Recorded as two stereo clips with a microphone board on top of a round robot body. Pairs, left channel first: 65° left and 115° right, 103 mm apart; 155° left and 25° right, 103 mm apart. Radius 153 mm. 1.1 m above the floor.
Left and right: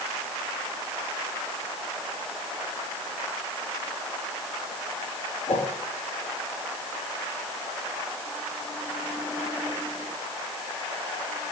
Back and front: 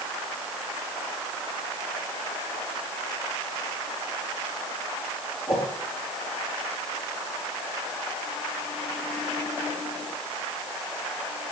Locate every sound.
5.5 s a whoosh: 65° left, 3.5 m